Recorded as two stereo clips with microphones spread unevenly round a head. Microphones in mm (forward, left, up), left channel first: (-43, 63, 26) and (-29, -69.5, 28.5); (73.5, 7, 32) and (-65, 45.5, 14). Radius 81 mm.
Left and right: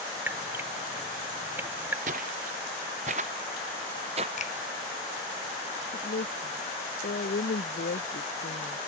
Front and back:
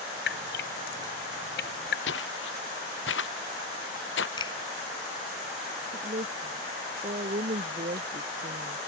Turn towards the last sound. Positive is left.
turn(degrees=115)